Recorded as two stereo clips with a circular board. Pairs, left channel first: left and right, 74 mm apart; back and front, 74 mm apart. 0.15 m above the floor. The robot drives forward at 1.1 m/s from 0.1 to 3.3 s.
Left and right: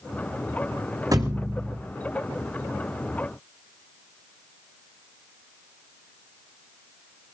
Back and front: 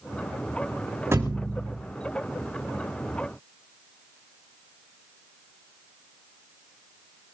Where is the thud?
55° right, 4.5 m; by 1.8 s 65° right, 4 m.